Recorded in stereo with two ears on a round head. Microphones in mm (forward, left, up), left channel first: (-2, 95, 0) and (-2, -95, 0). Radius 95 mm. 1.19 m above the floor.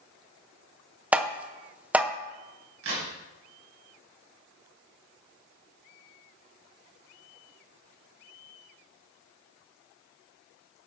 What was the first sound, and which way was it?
Tapping, 5° right (ahead or behind).